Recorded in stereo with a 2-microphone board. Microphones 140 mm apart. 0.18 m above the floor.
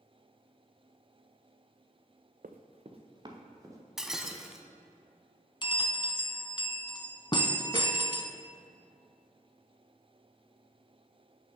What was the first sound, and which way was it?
Running footsteps, 75° right (ahead or behind).